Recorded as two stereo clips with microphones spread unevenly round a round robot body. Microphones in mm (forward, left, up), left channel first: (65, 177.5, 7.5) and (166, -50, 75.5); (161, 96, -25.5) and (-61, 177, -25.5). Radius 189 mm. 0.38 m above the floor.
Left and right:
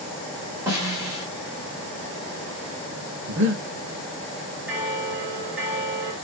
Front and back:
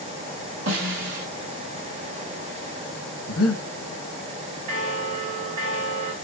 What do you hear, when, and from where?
0.7 s a snare drum: 155° right, 1.7 m
3.3 s breathing: 20° right, 1.2 m
4.7 s a bell: 160° right, 0.7 m